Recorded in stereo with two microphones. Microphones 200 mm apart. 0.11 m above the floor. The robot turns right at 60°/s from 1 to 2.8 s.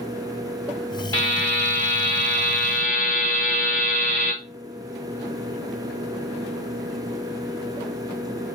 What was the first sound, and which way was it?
A buzzer, 20° left.